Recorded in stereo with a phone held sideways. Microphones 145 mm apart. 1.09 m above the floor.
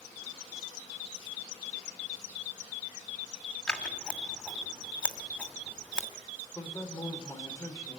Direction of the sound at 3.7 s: 5° left (ahead or behind).